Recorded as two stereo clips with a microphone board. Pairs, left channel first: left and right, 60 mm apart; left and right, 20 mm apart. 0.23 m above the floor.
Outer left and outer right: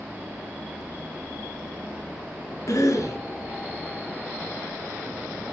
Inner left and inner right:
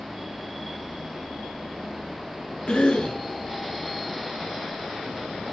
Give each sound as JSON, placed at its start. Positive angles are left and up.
{"t": 2.7, "sound": "a cough", "side_deg": 60, "distance_m": 2.5}